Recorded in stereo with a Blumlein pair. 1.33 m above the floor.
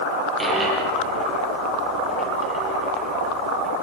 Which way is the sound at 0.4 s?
15° right.